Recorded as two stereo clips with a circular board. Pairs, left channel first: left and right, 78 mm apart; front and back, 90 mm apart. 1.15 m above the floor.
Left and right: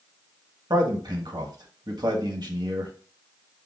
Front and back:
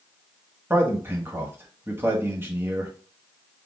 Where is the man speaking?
115° right, 1.6 m.